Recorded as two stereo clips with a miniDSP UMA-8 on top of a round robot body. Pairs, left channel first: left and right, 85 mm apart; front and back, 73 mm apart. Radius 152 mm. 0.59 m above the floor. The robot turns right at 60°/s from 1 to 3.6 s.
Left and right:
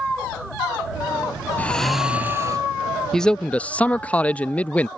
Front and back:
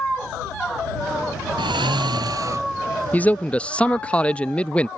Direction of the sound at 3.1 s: 15° left.